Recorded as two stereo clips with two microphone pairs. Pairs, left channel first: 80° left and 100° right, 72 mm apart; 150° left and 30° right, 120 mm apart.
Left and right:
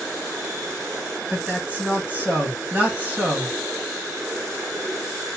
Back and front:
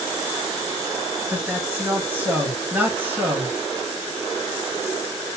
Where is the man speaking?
75° right, 1.7 m.